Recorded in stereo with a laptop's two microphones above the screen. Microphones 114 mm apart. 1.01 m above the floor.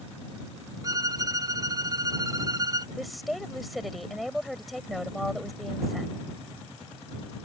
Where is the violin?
30° right (ahead or behind).